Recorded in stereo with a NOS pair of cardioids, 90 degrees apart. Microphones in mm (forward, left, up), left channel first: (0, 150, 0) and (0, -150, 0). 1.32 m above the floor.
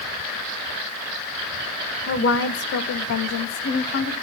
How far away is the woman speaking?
About 1.8 m.